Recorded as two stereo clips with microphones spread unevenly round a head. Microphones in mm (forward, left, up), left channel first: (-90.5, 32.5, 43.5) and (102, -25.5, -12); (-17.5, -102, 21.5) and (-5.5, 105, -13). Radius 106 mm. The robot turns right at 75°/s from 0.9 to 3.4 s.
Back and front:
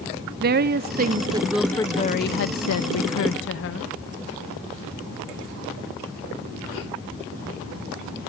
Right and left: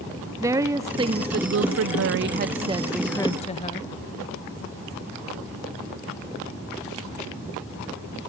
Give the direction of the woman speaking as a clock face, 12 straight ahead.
12 o'clock.